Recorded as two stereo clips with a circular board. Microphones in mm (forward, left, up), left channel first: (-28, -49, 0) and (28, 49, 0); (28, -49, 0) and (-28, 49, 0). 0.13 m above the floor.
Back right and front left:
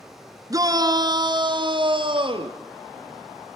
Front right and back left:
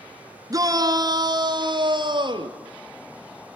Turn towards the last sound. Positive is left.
turn(degrees=85)